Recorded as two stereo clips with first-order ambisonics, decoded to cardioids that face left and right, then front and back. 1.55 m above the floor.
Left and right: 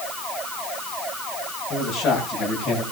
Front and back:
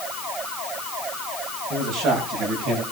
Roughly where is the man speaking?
Behind left.